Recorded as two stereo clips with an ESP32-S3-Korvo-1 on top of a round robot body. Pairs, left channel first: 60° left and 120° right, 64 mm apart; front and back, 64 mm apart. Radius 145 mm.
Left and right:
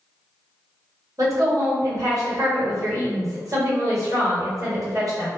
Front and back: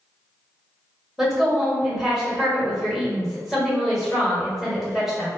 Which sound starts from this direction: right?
A woman speaking, at 1.2 s.